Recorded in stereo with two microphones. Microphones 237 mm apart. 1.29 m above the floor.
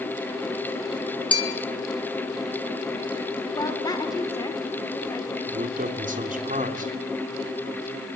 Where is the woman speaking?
15° left (ahead or behind), 4 m.